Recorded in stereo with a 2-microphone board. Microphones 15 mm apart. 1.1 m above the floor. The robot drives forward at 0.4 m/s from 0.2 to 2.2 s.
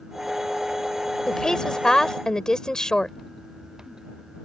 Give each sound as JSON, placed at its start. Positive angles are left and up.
{"t": 1.3, "sound": "a woman speaking", "side_deg": 50}